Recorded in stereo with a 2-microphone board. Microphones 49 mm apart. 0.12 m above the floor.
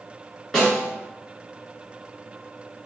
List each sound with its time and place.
0.5 s a snare drum: 10° left (ahead or behind), 1.6 m